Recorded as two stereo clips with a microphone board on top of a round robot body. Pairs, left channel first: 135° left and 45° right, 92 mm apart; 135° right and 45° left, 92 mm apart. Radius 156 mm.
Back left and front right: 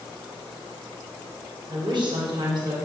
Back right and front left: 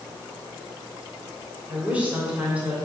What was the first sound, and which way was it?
A woman speaking, 30° right.